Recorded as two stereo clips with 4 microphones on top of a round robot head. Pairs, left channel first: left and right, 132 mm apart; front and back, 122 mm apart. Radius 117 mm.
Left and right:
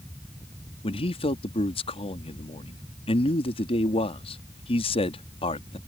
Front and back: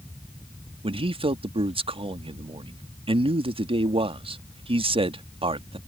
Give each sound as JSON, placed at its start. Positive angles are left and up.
{"t": 0.8, "sound": "a man speaking", "azimuth_deg": 140}